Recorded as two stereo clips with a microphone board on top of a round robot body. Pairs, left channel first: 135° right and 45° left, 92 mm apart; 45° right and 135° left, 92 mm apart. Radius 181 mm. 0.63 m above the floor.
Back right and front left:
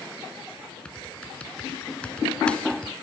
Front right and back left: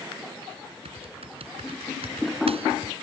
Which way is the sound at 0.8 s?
145° left.